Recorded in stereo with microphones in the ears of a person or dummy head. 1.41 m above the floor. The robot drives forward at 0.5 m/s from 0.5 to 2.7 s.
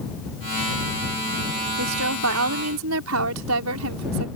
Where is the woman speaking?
80° right; by 4.3 s 75° right (ahead or behind).